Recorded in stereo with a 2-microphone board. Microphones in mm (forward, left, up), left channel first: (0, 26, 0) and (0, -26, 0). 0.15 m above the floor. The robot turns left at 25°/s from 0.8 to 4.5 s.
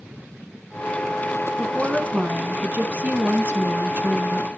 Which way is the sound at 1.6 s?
25° right.